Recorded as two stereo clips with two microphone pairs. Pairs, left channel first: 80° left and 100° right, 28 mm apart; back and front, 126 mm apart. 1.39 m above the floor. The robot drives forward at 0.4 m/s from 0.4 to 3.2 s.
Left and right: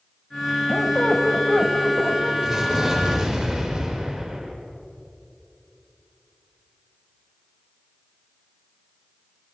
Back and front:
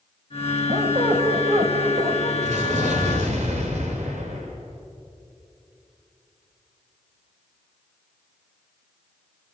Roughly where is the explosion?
Ahead.